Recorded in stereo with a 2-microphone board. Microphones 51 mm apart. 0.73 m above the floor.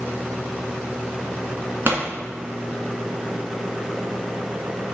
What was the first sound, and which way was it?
A pop, 45° right (ahead or behind).